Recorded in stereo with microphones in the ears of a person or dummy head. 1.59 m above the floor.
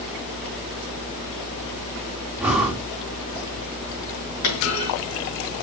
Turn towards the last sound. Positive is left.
turn(degrees=70)  # may be behind; listen again after turning